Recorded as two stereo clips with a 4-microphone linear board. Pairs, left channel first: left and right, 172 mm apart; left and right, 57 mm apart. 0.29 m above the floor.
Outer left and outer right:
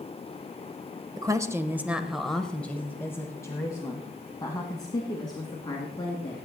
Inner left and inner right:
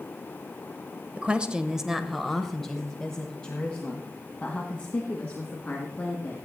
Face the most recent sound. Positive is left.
turn(degrees=25)  # may be behind; listen again after turning